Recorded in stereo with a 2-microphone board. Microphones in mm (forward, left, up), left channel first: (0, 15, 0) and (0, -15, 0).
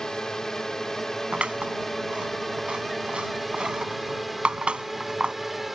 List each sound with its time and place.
0.0 s a drone: 20° left (ahead or behind); by 5.8 s 5° right (ahead or behind)
1.3 s scissors: 40° right (ahead or behind)